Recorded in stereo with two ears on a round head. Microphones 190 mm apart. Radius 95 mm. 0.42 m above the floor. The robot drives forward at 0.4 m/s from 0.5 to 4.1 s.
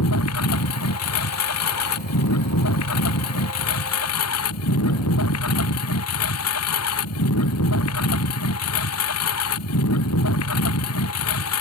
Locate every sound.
0.0 s a lawn mower: 80° left; by 11.6 s 85° left